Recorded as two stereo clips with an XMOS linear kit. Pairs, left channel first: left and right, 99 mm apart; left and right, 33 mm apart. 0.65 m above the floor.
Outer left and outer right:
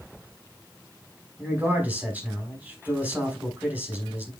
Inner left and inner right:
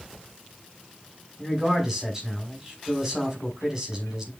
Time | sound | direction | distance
1.4 | a man speaking | 15° right (ahead or behind) | 5.5 m